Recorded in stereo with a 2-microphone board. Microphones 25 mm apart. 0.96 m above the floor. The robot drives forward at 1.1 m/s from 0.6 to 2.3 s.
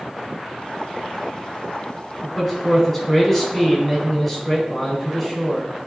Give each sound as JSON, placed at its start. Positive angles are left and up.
{"t": 2.2, "sound": "a man speaking", "side_deg": 0, "distance_m": 4.0}